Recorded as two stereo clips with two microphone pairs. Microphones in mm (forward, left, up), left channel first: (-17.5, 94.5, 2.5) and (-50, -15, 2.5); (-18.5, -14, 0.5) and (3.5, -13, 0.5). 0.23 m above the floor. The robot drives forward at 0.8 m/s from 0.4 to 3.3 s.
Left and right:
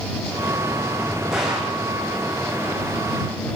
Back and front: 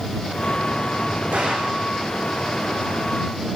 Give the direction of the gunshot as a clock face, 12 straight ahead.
1 o'clock.